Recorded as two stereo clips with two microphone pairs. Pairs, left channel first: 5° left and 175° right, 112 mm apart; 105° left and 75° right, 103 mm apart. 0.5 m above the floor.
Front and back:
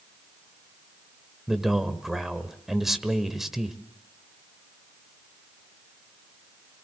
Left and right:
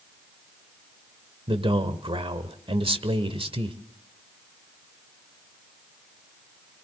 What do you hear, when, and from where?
1.5 s a man speaking: 85° right, 1.5 m